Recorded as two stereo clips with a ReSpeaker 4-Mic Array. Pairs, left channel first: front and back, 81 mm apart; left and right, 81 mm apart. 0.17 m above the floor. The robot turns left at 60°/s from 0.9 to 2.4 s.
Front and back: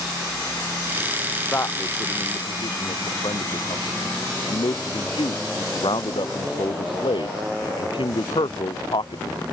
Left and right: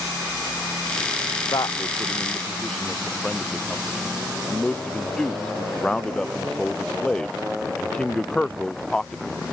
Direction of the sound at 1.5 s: 65° left.